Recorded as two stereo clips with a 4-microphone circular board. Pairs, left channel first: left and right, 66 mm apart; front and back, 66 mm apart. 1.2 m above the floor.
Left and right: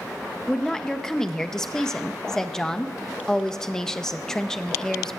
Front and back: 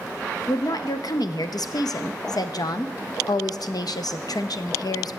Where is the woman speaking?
10° left, 0.5 m.